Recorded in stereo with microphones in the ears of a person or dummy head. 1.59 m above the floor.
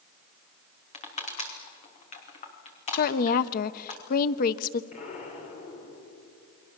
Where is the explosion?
45° left (ahead or behind), 4.5 m.